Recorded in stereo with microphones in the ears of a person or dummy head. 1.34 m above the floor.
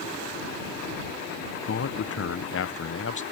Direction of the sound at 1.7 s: 60° left (ahead or behind).